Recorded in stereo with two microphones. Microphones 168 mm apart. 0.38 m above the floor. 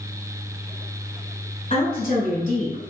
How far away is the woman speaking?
About 1.5 m.